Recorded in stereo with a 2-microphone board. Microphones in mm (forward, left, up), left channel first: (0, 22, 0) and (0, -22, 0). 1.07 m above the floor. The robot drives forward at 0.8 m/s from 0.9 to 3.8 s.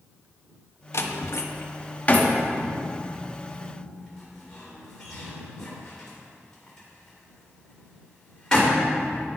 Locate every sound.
0.9 s a door slam: 65° left (ahead or behind), 0.6 m; by 9.3 s 15° left (ahead or behind), 2 m